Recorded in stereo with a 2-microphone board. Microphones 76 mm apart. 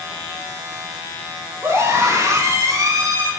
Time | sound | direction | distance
1.6 | a scream | 40° right (ahead or behind) | 6 m